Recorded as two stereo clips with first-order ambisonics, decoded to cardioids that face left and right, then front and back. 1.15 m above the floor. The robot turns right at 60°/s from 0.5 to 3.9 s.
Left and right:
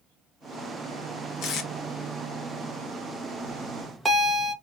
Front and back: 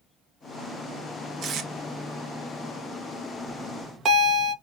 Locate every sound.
1.4 s tape being pulled: 125° left, 0.8 m; by 1.7 s 140° left, 0.8 m
3.5 s a bell: 170° left, 1.0 m; by 4.5 s 165° right, 1.0 m